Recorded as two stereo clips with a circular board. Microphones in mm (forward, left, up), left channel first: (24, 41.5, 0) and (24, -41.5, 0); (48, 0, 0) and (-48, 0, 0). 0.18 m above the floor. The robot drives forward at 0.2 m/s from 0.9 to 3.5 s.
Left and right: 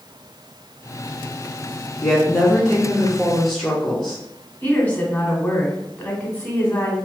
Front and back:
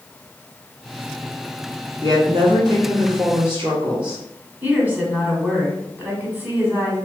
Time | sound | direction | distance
2.0 | a woman speaking | 170° left | 1.6 m
4.6 | a woman speaking | 135° left | 1.0 m